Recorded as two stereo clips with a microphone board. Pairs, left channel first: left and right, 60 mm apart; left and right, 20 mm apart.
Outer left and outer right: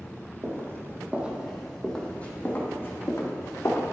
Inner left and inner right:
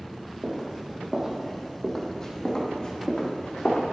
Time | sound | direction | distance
0.4 | footsteps | 50° right (ahead or behind) | 2 m